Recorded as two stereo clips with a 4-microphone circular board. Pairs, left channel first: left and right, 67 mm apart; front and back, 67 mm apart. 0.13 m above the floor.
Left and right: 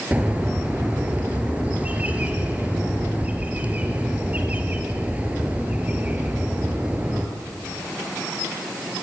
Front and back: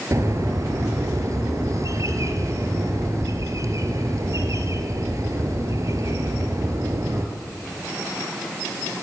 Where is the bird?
155° right, 3 m.